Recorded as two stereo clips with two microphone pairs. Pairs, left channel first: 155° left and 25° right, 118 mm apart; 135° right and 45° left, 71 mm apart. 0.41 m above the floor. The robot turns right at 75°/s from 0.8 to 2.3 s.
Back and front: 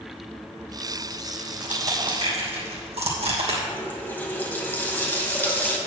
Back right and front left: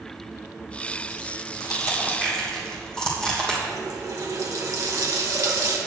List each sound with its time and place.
1.6 s crushing: 110° right, 3 m; by 3.6 s 55° right, 3 m
3.7 s a running tap: 80° left, 1.7 m